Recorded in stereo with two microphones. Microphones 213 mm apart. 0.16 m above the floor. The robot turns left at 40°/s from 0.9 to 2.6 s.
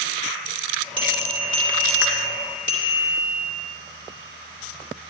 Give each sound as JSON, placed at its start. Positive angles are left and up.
{"t": 1.0, "sound": "a bell", "azimuth_deg": -25, "distance_m": 2.5}